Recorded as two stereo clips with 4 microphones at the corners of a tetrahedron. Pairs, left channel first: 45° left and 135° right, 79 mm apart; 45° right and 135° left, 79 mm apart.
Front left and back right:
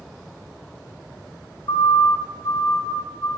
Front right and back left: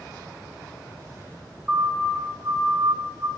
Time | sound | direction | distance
1.7 | a siren | 60° left | 2 m